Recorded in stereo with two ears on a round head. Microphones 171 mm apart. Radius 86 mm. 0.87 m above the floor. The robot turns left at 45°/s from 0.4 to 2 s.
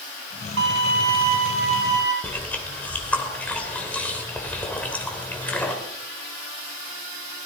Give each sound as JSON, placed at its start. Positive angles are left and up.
{"t": 0.6, "sound": "a violin", "azimuth_deg": -95, "distance_m": 3.0}
{"t": 2.2, "sound": "chewing", "side_deg": 10, "distance_m": 3.0}